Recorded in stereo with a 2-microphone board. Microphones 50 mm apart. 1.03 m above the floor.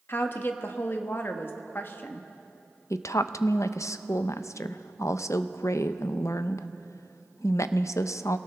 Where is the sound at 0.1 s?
45° left (ahead or behind), 1.2 m.